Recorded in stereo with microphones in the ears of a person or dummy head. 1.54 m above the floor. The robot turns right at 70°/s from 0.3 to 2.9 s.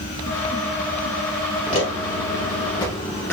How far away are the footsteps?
About 2.5 m.